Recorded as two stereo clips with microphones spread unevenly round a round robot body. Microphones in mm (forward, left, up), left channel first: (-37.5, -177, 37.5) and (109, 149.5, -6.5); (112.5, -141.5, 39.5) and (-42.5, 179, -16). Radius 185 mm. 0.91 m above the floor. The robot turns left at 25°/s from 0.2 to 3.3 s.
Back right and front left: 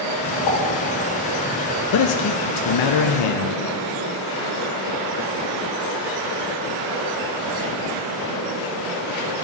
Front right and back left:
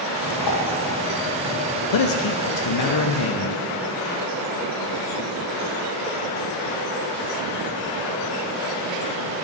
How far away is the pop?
About 3.5 m.